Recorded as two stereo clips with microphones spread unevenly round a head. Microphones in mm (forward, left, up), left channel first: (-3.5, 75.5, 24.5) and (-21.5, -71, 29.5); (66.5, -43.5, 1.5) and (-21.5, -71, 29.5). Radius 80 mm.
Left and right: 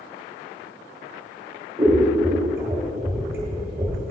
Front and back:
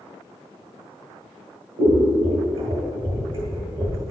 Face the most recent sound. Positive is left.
turn(degrees=-170)